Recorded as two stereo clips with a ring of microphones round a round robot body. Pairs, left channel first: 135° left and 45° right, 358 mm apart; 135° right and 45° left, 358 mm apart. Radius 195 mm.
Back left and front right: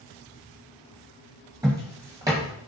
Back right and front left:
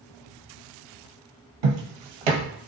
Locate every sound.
1.6 s footsteps: 35° left, 0.8 m